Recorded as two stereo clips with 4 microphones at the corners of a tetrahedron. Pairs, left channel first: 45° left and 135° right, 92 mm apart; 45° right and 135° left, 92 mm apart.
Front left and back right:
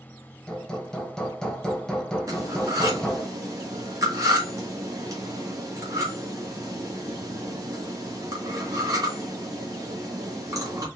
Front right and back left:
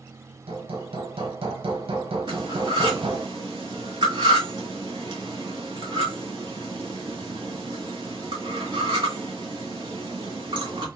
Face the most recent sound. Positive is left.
turn(degrees=175)